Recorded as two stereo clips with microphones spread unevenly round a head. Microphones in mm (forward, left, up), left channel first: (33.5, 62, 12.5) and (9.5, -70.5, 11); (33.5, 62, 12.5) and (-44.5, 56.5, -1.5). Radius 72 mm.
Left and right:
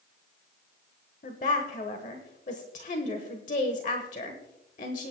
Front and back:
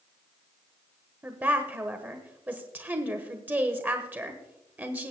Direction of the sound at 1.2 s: 120° left.